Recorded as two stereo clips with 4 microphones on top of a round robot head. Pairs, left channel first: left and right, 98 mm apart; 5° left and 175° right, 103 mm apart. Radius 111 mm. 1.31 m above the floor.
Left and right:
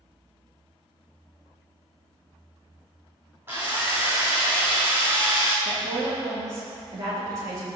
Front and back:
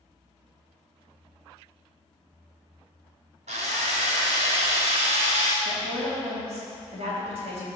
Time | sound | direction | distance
3.5 | a drill | 165° right | 1.0 m
5.7 | a woman speaking | 150° right | 4 m